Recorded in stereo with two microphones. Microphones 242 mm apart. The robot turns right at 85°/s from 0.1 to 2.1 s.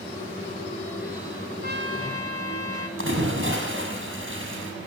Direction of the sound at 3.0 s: 55° right (ahead or behind).